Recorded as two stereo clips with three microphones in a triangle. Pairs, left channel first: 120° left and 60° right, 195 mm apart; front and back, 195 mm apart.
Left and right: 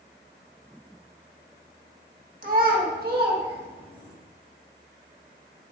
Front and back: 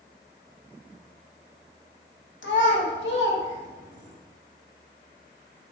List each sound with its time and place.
2.4 s a child speaking: 15° right, 1.4 m; by 4.2 s 25° right, 2.5 m